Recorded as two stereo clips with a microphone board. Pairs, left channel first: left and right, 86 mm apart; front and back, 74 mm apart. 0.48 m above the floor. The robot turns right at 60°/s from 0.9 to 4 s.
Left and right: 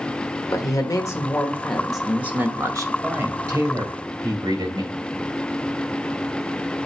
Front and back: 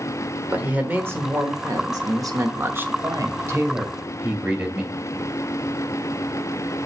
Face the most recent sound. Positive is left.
turn(degrees=-100)